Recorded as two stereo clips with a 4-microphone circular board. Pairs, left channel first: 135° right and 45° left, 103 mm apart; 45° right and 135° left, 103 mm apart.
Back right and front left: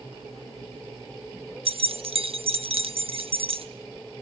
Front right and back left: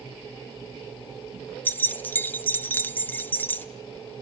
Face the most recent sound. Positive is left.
turn(degrees=25)